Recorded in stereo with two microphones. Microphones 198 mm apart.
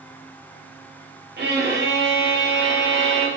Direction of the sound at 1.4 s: 60° right (ahead or behind).